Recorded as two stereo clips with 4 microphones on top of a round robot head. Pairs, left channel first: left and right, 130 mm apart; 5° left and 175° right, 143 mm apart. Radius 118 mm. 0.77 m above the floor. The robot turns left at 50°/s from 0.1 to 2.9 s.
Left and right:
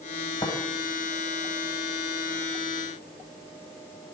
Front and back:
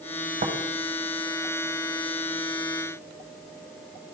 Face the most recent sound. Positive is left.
turn(degrees=30)